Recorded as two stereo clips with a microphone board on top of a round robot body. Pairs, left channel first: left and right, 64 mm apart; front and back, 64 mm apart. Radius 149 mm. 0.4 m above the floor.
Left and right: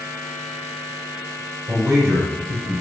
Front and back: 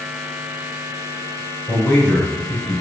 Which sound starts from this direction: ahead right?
A man speaking, at 1.7 s.